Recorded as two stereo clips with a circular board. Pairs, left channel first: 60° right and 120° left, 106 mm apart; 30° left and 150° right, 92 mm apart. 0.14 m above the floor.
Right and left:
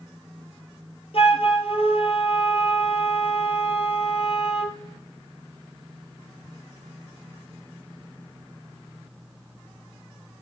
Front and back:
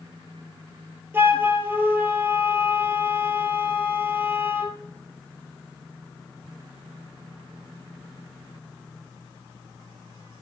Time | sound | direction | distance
1.1 | a flute | 85° right | 2 m